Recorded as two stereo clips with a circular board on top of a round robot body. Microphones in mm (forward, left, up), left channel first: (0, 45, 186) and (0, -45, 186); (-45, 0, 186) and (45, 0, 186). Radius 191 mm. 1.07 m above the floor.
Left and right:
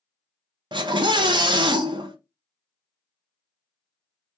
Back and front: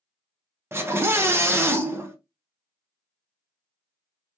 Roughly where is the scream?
Ahead right.